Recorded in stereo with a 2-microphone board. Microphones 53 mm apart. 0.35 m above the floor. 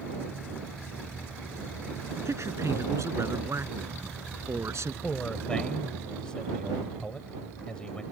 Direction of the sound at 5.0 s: 15° left (ahead or behind).